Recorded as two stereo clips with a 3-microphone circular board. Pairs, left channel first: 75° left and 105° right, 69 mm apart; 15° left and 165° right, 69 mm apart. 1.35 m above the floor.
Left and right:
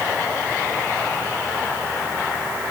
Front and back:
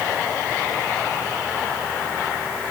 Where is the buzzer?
No buzzer in this recording.